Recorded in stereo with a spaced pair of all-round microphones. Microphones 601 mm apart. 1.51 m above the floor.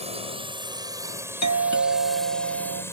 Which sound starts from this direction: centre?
A drone, at 0.0 s.